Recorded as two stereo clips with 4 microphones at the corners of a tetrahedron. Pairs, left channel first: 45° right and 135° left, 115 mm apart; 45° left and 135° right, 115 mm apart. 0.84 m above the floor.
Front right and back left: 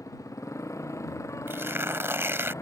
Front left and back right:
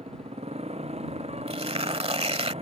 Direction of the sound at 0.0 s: 110° right.